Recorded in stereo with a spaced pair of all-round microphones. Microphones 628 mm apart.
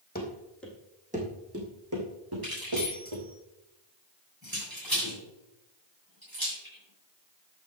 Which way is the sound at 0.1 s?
15° left (ahead or behind).